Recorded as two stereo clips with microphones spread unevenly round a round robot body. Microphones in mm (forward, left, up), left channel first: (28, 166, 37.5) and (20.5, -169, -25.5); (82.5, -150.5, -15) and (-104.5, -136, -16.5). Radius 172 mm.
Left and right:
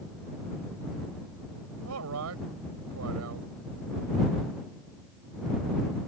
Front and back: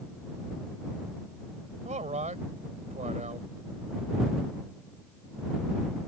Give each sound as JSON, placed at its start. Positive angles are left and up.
{"t": 1.9, "sound": "a man speaking", "azimuth_deg": -135}